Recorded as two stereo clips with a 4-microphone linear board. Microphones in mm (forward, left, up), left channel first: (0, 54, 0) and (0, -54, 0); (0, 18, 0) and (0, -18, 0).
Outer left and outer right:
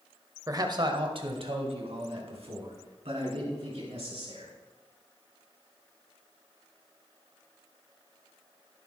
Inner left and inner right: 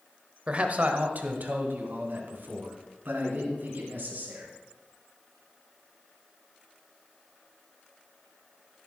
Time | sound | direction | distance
0.5 | a man speaking | 30° right (ahead or behind) | 1.1 m